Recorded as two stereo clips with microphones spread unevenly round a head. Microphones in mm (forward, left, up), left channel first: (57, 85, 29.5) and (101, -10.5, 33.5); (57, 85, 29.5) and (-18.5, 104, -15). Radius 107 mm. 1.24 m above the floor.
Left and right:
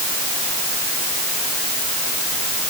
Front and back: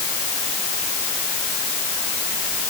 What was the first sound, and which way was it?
Only background noise.